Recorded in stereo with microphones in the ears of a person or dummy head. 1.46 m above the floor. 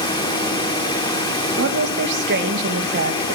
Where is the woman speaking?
60° right (ahead or behind), 1.8 m.